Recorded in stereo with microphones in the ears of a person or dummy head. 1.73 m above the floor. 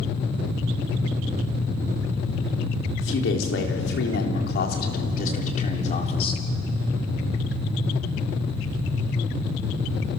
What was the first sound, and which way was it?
A man speaking, 80° left.